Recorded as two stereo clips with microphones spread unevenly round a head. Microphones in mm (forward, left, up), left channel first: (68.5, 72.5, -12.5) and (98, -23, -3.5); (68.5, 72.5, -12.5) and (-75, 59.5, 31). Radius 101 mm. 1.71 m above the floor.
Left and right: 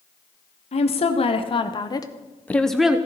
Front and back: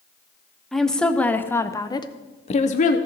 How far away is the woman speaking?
About 1.2 m.